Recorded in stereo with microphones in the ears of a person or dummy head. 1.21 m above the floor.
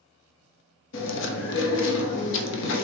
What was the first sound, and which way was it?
Chewing, 65° left (ahead or behind).